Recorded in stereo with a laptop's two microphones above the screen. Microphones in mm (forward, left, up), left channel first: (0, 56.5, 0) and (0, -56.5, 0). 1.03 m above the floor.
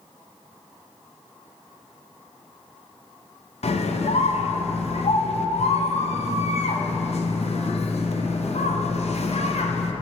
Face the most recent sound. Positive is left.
turn(degrees=70)  # may be behind; listen again after turning